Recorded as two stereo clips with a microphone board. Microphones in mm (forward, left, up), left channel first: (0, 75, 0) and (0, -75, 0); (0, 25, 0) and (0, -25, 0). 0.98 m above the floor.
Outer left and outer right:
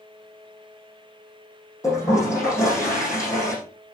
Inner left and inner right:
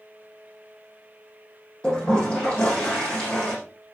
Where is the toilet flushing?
20° left (ahead or behind), 8.5 m.